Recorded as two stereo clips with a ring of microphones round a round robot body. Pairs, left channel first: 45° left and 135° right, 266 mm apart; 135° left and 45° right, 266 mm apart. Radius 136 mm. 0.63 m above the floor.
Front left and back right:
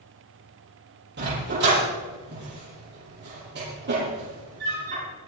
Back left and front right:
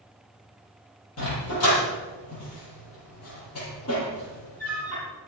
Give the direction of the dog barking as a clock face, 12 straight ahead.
6 o'clock.